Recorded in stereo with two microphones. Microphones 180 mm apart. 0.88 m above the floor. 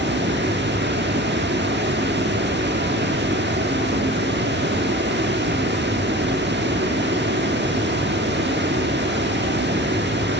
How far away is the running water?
About 1.1 m.